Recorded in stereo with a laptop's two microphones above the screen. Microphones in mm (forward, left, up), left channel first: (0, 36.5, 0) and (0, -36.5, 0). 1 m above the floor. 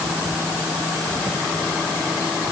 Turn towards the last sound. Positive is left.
No sound to turn to.